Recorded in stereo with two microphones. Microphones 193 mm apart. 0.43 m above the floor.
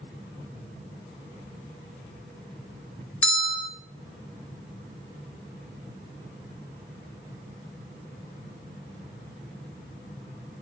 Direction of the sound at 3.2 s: 10° left (ahead or behind).